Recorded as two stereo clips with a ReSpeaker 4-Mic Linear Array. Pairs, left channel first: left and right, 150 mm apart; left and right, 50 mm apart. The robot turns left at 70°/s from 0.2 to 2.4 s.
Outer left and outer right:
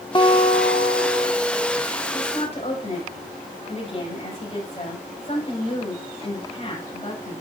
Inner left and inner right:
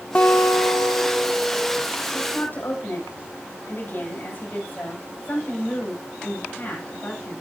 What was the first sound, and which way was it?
A guitar, 150° left.